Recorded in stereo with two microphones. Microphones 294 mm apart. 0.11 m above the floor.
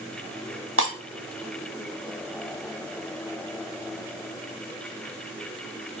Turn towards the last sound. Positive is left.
turn(degrees=-45)  # may be behind; listen again after turning